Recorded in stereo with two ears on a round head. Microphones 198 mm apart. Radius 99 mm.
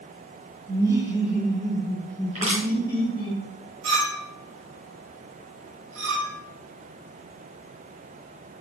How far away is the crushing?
About 4 m.